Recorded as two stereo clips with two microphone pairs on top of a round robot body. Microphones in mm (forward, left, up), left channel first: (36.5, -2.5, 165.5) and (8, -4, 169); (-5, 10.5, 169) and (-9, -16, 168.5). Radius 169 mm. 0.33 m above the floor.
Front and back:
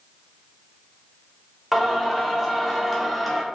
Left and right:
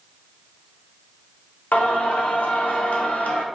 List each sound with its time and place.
1.7 s singing: 100° left, 0.6 m